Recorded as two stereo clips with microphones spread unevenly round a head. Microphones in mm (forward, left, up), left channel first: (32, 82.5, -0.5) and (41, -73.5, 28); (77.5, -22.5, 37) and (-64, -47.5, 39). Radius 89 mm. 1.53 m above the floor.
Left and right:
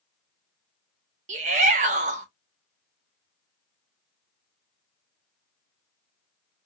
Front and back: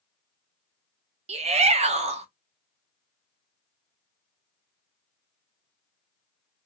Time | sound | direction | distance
1.3 | a shout | 130° right | 1.1 m